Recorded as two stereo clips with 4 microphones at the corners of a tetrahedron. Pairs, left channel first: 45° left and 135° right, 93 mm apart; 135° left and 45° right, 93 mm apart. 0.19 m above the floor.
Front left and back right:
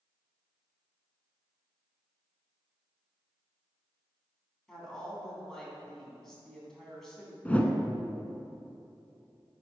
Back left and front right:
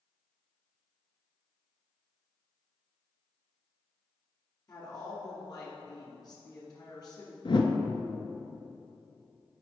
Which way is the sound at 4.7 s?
130° left.